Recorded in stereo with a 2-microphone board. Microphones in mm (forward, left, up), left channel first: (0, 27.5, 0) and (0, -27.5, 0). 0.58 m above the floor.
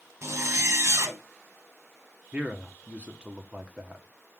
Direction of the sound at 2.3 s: 20° right (ahead or behind).